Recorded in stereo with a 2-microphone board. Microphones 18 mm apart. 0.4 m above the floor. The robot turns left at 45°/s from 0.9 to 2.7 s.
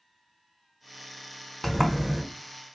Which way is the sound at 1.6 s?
10° left (ahead or behind).